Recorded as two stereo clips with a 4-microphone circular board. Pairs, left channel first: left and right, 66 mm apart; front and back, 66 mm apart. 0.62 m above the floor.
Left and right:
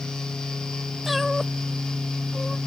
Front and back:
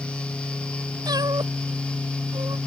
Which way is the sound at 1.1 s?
Straight behind.